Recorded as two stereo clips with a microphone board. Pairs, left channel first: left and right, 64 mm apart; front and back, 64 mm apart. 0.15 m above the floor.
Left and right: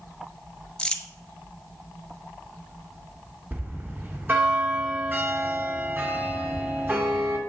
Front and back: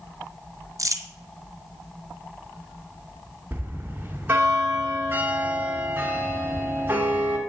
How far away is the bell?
About 1.3 m.